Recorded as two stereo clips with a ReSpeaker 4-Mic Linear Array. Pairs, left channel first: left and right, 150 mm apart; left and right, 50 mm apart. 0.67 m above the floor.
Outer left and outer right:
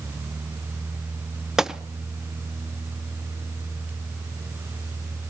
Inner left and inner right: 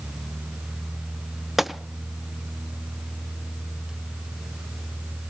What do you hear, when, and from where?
1.6 s a gunshot: 5° right (ahead or behind), 0.5 m